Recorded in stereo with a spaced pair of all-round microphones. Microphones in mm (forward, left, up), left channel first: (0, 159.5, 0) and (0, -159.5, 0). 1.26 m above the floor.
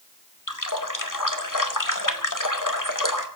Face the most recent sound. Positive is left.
turn(degrees=75)  # may be behind; listen again after turning